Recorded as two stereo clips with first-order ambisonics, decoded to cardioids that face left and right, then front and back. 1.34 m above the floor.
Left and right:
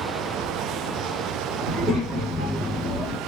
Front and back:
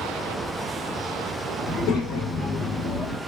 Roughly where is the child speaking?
Ahead.